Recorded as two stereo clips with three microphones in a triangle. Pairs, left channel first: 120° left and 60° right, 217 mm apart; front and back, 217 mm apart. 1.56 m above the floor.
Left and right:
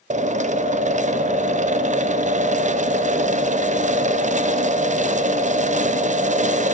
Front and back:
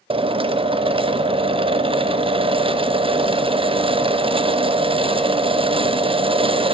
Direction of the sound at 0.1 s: 110° right.